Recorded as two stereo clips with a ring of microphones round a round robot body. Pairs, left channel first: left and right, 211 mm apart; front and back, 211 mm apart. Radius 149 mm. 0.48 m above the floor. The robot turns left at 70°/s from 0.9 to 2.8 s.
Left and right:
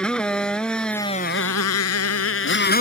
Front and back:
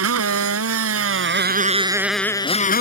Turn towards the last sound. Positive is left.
turn(degrees=45)